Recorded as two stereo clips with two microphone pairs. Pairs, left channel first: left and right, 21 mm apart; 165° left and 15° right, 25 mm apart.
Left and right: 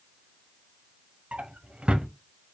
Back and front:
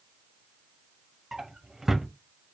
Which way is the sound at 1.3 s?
90° right.